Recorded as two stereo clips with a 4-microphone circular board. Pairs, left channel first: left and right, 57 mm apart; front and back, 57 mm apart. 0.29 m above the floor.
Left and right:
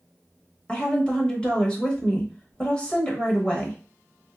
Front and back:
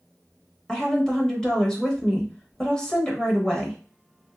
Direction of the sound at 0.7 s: 55° left.